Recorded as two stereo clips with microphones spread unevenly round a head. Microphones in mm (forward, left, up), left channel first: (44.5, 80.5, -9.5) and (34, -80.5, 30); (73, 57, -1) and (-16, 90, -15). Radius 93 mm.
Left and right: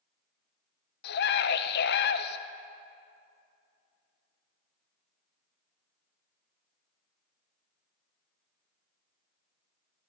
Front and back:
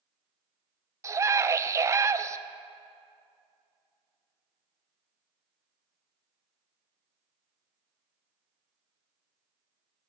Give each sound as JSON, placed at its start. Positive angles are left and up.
{"t": 1.0, "sound": "a scream", "azimuth_deg": 100, "distance_m": 0.6}